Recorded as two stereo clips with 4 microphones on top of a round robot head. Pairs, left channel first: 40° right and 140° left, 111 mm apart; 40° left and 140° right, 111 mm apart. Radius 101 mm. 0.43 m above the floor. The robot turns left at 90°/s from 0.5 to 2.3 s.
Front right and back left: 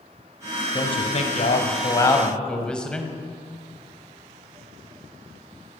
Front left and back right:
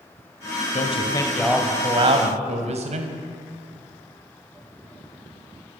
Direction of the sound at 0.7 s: 20° left.